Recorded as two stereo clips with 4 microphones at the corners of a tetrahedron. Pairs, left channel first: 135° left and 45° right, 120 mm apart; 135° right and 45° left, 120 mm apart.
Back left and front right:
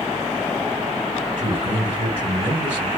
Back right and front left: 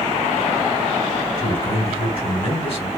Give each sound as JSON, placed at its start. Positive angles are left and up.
{"t": 1.4, "sound": "a man speaking", "azimuth_deg": -90, "distance_m": 3.0}